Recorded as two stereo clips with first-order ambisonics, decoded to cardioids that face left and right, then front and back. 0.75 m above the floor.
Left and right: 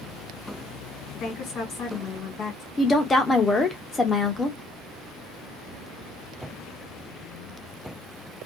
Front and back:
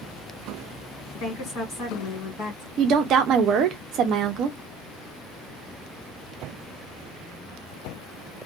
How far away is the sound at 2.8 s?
About 0.7 m.